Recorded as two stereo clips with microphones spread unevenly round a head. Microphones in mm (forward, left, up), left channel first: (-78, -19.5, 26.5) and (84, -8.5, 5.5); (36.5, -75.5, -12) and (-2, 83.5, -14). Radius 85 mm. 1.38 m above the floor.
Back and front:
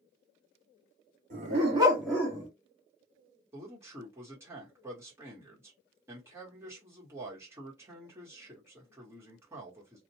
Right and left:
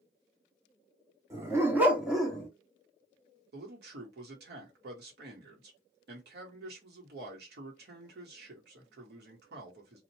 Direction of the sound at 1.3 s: 35° left.